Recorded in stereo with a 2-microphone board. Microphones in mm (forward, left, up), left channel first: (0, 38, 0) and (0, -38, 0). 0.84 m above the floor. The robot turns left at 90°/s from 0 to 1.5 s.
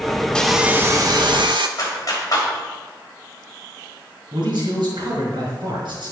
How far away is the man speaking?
About 5 m.